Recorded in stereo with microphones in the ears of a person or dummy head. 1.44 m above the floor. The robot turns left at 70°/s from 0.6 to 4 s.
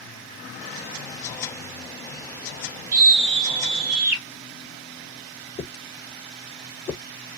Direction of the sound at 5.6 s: 15° left (ahead or behind).